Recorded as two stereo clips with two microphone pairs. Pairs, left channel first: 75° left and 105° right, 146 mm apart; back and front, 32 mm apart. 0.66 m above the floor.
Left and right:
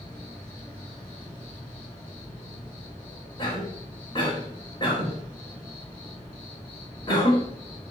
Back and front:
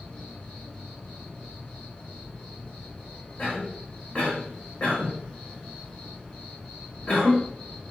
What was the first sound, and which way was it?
An insect, 145° left.